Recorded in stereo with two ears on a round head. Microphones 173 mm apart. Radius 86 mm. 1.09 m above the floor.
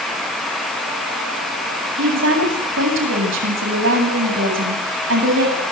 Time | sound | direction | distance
2.0 | a woman speaking | 75° right (ahead or behind) | 8.5 m